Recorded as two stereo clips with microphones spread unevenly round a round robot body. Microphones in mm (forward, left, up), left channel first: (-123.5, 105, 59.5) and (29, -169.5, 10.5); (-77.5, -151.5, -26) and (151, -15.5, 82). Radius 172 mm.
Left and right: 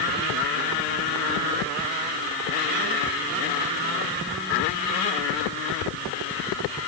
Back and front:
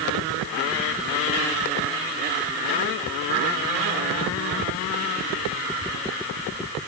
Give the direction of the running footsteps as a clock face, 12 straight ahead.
I don't hear running footsteps.